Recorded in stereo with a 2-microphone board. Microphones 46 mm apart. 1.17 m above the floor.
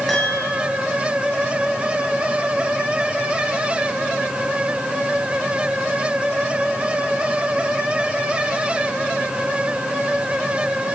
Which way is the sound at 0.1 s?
5° left (ahead or behind).